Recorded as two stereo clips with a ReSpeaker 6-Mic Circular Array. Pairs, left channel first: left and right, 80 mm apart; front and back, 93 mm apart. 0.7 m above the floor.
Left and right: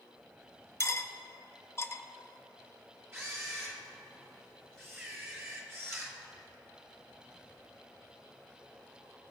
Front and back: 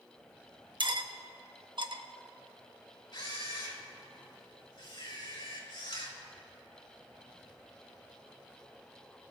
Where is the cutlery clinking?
145° left, 0.6 m.